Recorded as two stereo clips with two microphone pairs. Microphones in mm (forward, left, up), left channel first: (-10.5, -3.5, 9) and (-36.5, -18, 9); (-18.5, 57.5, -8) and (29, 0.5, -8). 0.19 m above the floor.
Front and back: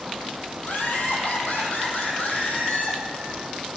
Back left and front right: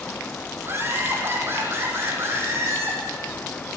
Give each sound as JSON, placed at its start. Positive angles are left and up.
{"t": 0.6, "sound": "laughter", "azimuth_deg": 10, "distance_m": 6.0}